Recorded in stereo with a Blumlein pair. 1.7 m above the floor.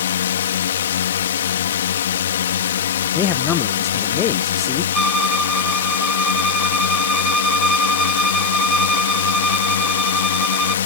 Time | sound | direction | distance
0.0 | a drone | 60° left | ?
3.1 | a man speaking | 30° left | ?
4.9 | a violin | 5° right | ?